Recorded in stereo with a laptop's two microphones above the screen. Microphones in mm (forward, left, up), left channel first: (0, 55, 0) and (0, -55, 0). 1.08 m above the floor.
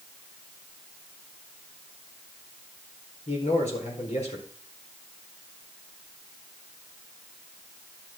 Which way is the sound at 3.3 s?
80° left.